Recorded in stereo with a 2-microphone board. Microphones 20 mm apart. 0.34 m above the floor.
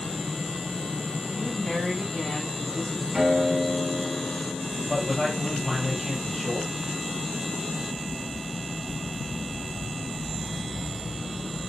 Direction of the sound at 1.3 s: 25° left (ahead or behind).